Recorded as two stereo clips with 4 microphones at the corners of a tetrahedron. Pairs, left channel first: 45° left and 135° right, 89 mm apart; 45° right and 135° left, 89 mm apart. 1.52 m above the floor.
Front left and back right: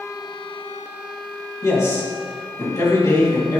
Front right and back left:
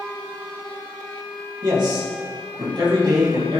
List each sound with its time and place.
1.6 s a man speaking: 100° left, 3 m